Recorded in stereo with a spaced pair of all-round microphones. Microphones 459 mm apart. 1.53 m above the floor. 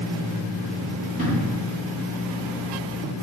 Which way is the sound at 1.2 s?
15° right (ahead or behind).